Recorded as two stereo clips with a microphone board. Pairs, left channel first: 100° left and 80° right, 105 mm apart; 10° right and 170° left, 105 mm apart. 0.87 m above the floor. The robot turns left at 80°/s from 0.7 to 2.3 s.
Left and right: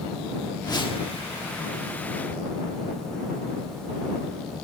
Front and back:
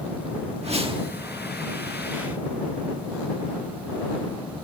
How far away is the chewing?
No chewing in this recording.